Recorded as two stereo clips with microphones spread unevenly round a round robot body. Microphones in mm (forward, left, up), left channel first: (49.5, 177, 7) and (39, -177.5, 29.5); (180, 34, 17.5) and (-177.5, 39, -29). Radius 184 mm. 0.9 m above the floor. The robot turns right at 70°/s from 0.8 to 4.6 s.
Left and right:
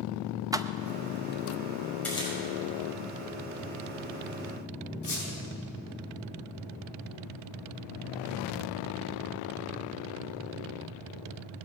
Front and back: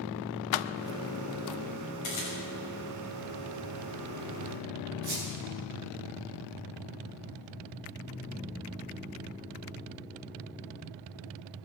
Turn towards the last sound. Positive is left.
turn(degrees=155)